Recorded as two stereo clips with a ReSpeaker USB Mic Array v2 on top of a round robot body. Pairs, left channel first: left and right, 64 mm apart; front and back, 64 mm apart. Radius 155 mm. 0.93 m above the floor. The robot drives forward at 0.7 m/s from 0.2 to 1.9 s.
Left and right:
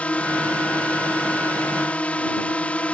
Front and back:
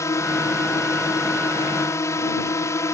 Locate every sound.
0.0 s a drone: 25° left